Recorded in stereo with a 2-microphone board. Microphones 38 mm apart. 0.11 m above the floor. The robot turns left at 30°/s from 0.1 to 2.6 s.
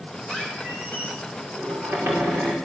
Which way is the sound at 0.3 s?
25° right.